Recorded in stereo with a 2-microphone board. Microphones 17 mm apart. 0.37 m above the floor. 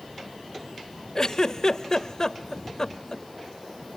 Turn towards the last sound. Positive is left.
turn(degrees=35)  # may be behind; listen again after turning